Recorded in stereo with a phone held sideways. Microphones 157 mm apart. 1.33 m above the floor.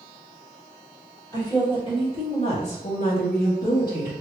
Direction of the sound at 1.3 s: 25° left (ahead or behind).